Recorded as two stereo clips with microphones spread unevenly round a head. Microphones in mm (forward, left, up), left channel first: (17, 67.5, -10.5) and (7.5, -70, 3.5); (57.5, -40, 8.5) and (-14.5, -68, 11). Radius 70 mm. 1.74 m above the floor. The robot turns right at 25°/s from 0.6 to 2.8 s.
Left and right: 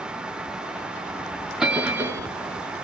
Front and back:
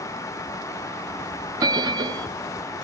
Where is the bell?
175° right, 0.7 m; by 2.3 s 155° right, 0.7 m.